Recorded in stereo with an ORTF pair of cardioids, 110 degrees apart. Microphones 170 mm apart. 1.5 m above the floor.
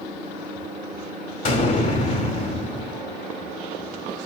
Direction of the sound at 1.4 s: 50° left.